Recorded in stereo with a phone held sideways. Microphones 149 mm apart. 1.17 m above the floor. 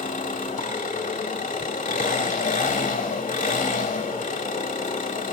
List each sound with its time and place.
0.0 s an engine running: 60° left (ahead or behind), 1.7 m